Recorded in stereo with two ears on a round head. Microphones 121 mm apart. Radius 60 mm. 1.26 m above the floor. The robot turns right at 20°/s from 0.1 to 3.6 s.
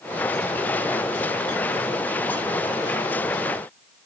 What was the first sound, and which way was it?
Only background noise.